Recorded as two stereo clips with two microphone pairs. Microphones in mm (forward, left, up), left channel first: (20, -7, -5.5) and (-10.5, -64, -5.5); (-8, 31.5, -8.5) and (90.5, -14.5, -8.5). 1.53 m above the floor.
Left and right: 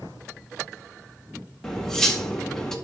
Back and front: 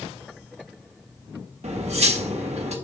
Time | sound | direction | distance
1.6 | cutlery clinking | 20° right | 1.6 m